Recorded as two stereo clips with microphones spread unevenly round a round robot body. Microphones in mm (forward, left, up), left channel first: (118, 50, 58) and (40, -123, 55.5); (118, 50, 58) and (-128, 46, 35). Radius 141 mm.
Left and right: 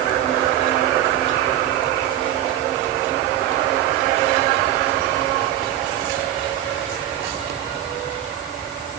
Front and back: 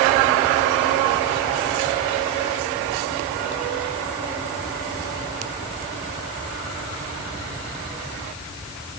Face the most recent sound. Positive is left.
No sound to turn to.